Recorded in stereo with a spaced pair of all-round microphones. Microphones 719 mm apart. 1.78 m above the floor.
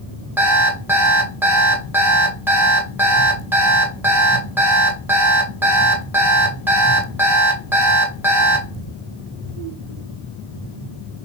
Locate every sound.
0.4 s an alarm clock: 5° right (ahead or behind), 0.9 m